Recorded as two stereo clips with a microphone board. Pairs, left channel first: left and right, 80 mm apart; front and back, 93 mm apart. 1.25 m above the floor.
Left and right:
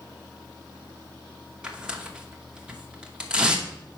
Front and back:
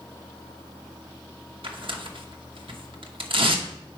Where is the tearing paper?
165° right, 0.8 m.